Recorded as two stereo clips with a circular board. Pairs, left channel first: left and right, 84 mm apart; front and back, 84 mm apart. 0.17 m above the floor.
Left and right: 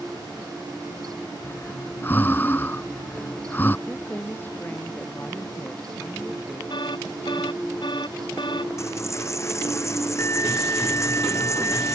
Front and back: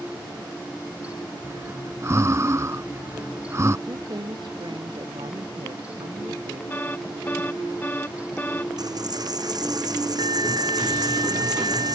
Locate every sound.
1.4 s breathing: 145° left
3.9 s a woman speaking: 155° left
6.7 s an alarm: 70° left
8.8 s a dropped coin: 140° left